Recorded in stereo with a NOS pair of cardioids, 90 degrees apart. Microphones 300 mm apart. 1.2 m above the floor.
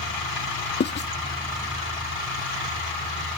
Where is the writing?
35° left.